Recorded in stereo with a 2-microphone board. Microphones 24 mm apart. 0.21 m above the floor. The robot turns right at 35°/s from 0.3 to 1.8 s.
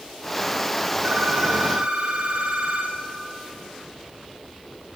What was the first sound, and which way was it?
A phone ringing, 55° right (ahead or behind).